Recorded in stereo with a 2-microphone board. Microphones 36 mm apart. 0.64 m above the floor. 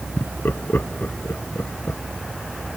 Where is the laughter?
75° left (ahead or behind).